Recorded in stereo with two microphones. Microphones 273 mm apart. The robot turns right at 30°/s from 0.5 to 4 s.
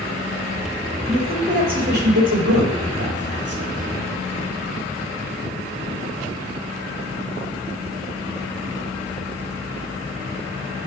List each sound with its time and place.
1.1 s a man speaking: 15° right (ahead or behind), 3.5 m; by 3.6 s 65° right (ahead or behind), 3.5 m